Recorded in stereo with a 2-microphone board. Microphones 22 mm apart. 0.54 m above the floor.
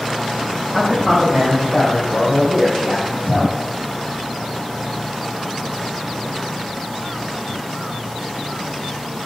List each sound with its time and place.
0.7 s a man speaking: 20° left (ahead or behind), 3 m; by 3.5 s 45° left (ahead or behind), 3.5 m